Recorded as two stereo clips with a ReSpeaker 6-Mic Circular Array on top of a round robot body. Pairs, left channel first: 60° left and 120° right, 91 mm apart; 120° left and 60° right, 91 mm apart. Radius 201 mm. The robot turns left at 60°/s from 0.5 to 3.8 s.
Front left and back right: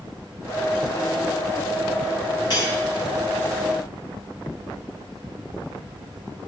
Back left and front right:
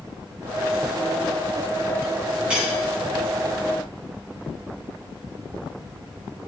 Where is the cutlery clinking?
20° left, 4.5 m; by 2.8 s 5° left, 4.5 m.